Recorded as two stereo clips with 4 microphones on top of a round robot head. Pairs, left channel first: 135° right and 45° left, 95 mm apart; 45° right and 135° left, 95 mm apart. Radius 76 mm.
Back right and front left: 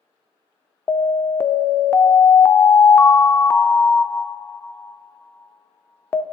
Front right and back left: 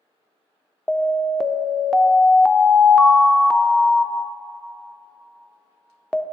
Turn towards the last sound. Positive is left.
turn(degrees=-125)